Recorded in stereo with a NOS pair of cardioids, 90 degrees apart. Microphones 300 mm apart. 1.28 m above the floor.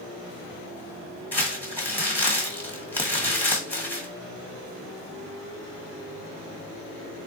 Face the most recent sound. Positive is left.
turn(degrees=5)